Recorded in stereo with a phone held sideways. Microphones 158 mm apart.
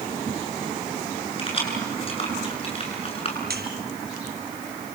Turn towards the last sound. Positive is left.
turn(degrees=-80)